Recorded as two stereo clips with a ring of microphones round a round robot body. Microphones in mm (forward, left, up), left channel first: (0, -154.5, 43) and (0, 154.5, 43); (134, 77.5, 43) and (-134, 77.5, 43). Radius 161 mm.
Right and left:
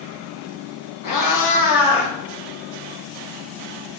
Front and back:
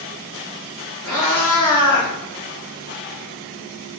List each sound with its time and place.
1.0 s a cat meowing: 85° right, 1.2 m; by 2.1 s 75° right, 1.6 m